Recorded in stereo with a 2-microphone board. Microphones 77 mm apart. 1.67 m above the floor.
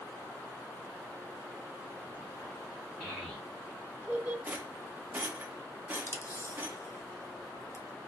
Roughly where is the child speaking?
Centre.